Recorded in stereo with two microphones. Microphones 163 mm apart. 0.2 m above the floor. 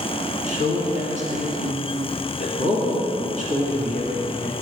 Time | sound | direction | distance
0.5 | a man speaking | 50° right (ahead or behind) | 2.5 m